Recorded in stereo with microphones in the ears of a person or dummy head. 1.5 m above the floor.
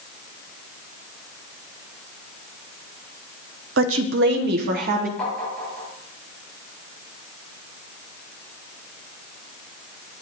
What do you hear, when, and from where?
3.8 s a woman speaking: 80° right, 0.9 m; by 5.1 s 55° right (ahead or behind), 1.1 m
5.2 s tapping: 5° left (ahead or behind), 7 m